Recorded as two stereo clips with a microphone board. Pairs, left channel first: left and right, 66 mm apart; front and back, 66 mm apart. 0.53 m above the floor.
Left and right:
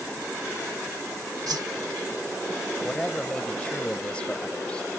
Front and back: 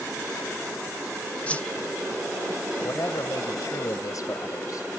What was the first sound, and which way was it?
A whoosh, 70° right.